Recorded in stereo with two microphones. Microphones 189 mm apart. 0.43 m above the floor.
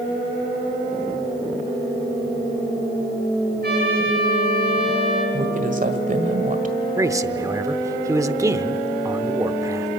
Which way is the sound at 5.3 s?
45° right (ahead or behind).